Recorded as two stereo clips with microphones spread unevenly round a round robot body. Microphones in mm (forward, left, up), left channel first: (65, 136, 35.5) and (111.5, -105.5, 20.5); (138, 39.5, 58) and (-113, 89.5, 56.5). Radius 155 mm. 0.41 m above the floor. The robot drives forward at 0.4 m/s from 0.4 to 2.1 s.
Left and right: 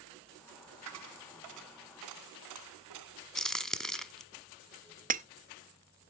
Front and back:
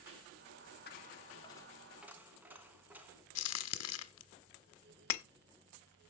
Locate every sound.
0.9 s a dropped coin: 70° right, 0.8 m; by 3.2 s 105° right, 0.8 m
3.4 s a crack: 15° left, 1.1 m
5.1 s breaking glass: 20° right, 0.6 m